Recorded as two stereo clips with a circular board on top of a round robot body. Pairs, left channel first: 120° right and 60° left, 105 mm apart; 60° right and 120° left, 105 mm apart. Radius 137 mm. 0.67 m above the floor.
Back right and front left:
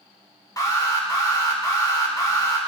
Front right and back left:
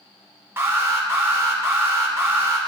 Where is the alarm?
175° right, 3 m.